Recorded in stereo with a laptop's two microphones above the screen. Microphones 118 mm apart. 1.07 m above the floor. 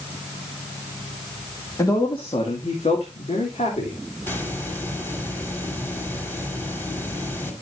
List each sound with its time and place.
1.8 s a man speaking: 30° left (ahead or behind), 2 m; by 4.0 s 75° left (ahead or behind), 3.5 m
4.2 s a hiss: 20° left (ahead or behind), 2.5 m